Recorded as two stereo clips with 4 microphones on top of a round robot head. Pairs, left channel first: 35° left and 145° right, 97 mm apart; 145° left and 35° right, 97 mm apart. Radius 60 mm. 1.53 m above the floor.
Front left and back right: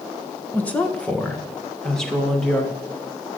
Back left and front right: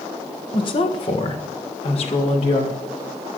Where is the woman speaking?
110° left, 1.7 m; by 2.7 s 125° left, 3 m.